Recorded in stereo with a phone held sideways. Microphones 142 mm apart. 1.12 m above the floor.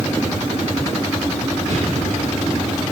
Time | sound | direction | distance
1.7 | an explosion | 70° right (ahead or behind) | 7 m